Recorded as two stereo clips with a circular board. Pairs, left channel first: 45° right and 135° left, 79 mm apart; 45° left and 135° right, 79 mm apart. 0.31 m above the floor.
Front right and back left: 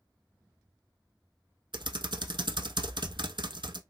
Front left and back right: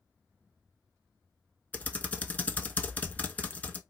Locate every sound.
1.7 s typing on a keyboard: 115° left, 0.7 m